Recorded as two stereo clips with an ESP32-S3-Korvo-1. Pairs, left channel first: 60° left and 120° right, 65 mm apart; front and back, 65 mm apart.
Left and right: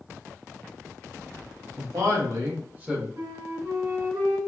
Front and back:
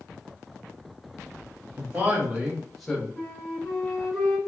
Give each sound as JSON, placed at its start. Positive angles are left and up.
{"t": 1.8, "sound": "a man speaking", "azimuth_deg": -120, "distance_m": 1.6}
{"t": 3.2, "sound": "a flute", "azimuth_deg": -90, "distance_m": 1.0}